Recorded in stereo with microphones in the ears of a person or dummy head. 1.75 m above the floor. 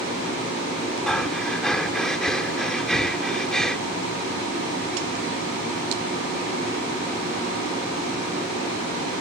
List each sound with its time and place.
1.1 s breathing: 5° left (ahead or behind)